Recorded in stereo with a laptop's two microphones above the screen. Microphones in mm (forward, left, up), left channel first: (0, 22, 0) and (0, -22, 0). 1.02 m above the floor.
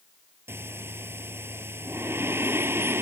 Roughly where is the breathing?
Right.